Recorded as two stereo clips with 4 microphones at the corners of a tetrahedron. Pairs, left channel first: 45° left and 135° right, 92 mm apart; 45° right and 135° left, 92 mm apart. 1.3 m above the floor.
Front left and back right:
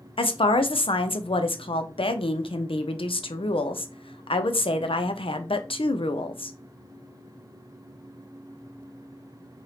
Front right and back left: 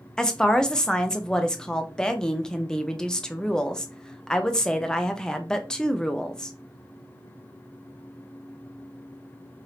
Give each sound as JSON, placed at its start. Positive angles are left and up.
{"t": 0.2, "sound": "a woman speaking", "azimuth_deg": 35, "distance_m": 0.6}